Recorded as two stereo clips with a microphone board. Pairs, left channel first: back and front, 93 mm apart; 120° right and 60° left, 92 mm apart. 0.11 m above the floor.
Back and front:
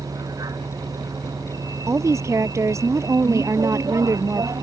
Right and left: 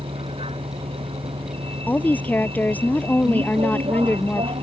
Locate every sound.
0.0 s a vehicle: 50° left
1.9 s a woman speaking: 50° right